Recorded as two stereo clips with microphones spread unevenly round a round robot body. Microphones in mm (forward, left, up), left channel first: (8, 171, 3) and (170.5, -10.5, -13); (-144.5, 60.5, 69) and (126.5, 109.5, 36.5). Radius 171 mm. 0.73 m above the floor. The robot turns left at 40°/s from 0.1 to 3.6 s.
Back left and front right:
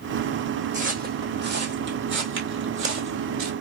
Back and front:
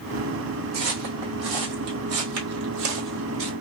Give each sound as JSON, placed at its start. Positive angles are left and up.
{"t": 0.7, "sound": "footsteps", "azimuth_deg": 10, "distance_m": 1.8}